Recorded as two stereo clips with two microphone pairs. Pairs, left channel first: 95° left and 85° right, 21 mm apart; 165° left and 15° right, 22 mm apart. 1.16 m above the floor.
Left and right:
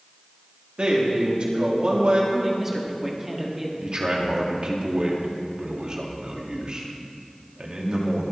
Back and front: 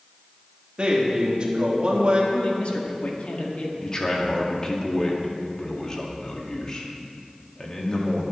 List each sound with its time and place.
0.8 s a man speaking: 55° right, 3 m
2.3 s a man speaking: 160° right, 2 m
3.8 s a man speaking: 135° right, 2 m